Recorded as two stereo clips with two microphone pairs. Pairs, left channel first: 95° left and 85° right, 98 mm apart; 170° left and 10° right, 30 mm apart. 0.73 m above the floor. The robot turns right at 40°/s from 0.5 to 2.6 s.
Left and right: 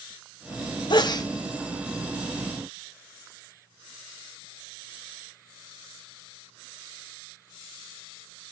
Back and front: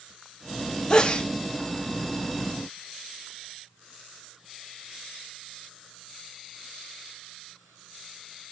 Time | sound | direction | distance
0.9 | a sneeze | 115° left | 0.8 m